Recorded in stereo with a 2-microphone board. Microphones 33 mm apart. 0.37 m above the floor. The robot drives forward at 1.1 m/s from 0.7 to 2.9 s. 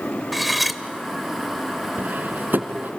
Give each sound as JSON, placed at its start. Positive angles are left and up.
{"t": 0.3, "sound": "cutlery clinking", "side_deg": 0, "distance_m": 0.9}
{"t": 2.0, "sound": "cutlery clinking", "side_deg": -70, "distance_m": 2.0}